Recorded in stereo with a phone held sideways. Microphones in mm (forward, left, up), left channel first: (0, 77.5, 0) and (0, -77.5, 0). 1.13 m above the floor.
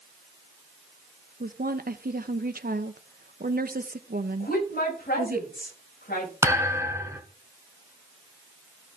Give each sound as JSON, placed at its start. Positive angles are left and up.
{"t": 1.4, "sound": "a woman speaking", "side_deg": -70, "distance_m": 0.9}
{"t": 4.4, "sound": "a woman speaking", "side_deg": 80, "distance_m": 6.0}
{"t": 6.4, "sound": "a thud", "side_deg": -20, "distance_m": 1.7}